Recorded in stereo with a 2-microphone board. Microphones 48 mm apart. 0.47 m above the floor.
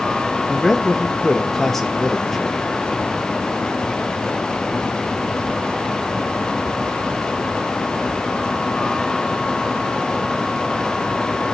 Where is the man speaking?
5° left (ahead or behind), 1.5 m.